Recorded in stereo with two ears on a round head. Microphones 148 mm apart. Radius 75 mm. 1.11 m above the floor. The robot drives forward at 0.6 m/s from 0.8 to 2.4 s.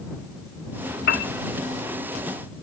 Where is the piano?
65° left (ahead or behind), 1.0 m.